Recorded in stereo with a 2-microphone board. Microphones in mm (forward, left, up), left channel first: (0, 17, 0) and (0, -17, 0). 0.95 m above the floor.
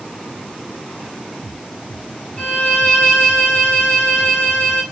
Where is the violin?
25° left (ahead or behind), 2 m.